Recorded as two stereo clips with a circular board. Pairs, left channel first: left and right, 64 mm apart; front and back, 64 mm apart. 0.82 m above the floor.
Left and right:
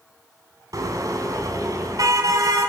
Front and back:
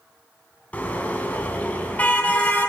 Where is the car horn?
70° right, 4 m.